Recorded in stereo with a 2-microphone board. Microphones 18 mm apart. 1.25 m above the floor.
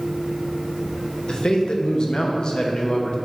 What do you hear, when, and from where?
1.3 s a man speaking: 45° left (ahead or behind), 0.8 m